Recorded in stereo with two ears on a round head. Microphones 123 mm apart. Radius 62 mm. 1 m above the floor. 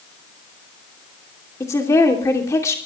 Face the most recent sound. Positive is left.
turn(degrees=20)  # may be behind; listen again after turning